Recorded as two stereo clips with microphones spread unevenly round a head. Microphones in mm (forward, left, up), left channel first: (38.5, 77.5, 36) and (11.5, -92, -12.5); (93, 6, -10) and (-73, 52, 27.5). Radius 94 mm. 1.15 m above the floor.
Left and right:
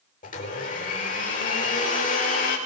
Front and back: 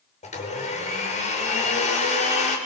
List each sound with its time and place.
0.2 s a blender: 35° left, 5 m